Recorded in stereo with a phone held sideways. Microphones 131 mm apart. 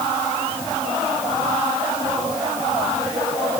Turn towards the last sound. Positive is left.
No sound to turn to.